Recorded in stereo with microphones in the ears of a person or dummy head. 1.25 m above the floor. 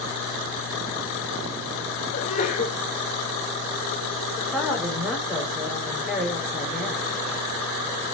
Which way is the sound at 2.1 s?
35° left (ahead or behind).